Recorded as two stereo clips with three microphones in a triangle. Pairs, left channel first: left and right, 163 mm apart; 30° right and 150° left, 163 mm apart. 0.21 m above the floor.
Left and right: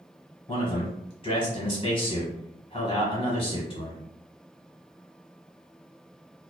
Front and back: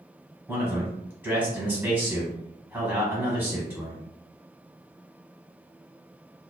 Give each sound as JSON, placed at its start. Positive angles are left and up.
{"t": 0.5, "sound": "a man speaking", "azimuth_deg": 80, "distance_m": 1.4}